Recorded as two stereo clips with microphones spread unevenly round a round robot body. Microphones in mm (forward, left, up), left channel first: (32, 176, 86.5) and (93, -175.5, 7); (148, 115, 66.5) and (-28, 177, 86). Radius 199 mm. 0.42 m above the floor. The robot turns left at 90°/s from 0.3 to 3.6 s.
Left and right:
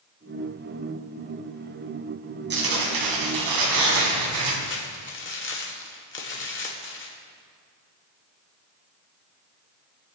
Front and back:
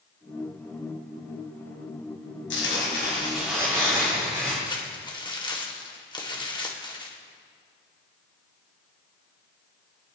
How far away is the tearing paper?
About 3 m.